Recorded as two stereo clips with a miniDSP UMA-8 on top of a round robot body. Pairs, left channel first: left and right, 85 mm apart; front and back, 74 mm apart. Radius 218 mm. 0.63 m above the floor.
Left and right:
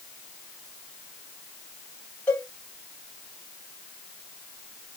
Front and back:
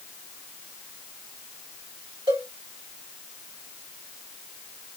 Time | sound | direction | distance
2.3 | a cowbell | 165° left | 2.5 m